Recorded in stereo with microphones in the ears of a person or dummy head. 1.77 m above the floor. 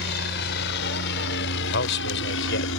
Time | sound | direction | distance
0.0 | a helicopter | 55° left (ahead or behind) | ?
1.6 | a man speaking | 60° left (ahead or behind) | ?